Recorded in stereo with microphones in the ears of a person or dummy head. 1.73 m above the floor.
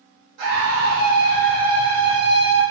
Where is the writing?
I don't hear writing.